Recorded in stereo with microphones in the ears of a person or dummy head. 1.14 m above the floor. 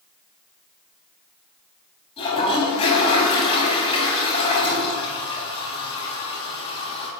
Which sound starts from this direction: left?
A toilet flushing, at 2.2 s.